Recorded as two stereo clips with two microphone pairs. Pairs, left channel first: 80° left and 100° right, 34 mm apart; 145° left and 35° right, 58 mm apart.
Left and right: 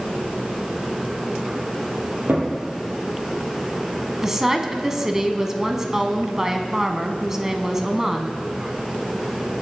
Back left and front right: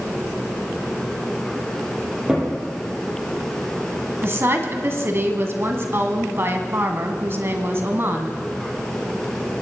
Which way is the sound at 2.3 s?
110° right.